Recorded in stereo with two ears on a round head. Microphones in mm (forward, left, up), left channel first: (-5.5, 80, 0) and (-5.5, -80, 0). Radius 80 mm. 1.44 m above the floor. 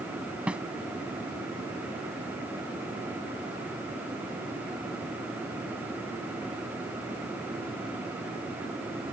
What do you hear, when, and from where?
0.5 s a snare drum: 5° right (ahead or behind)